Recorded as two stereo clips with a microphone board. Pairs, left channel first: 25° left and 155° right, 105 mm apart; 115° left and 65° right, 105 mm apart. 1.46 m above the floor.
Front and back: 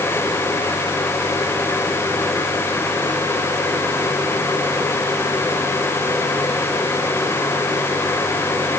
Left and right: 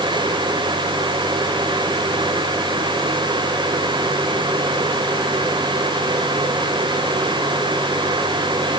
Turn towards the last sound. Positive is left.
No sound to turn to.